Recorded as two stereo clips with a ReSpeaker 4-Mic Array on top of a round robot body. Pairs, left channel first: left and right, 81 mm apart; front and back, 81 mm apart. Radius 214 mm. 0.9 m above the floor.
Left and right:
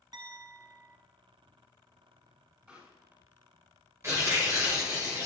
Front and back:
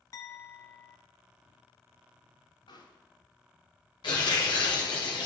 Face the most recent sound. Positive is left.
turn(degrees=-30)